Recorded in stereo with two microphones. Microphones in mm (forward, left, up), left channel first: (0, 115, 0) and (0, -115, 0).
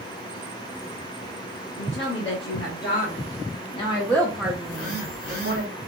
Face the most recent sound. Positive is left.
turn(degrees=70)  # may be behind; listen again after turning